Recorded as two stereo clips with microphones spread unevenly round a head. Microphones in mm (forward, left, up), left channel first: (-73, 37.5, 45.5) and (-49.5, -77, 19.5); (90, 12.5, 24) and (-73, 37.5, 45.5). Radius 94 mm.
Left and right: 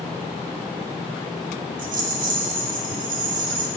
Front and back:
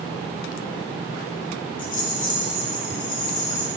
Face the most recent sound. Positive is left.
turn(degrees=-60)